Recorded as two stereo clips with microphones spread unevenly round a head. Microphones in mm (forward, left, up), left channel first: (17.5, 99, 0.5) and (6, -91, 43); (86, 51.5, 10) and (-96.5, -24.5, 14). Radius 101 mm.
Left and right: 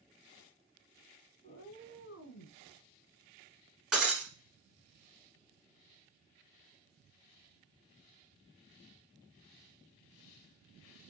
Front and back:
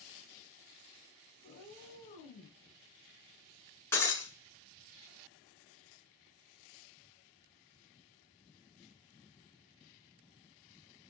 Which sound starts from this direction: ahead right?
Breaking glass, at 3.9 s.